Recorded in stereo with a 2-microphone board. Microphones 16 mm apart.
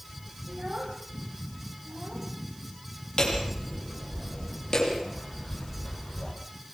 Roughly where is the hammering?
Left.